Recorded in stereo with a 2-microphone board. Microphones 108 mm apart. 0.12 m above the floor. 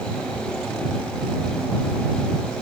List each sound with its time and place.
Only background noise.